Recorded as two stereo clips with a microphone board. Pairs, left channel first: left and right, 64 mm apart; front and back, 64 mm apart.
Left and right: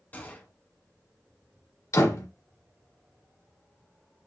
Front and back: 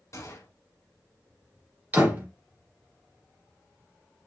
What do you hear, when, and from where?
0.1 s a gunshot: 30° left, 1.0 m
1.9 s a door slam: 115° left, 1.8 m